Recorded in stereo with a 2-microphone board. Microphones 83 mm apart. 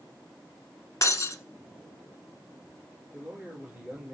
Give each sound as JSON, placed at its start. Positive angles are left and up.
{"t": 1.0, "sound": "breaking glass", "side_deg": 45, "distance_m": 1.1}
{"t": 3.1, "sound": "a man speaking", "side_deg": -5, "distance_m": 4.5}